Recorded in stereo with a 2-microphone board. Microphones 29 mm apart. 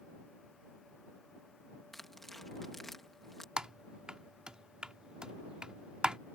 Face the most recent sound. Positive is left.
turn(degrees=-30)  # may be behind; listen again after turning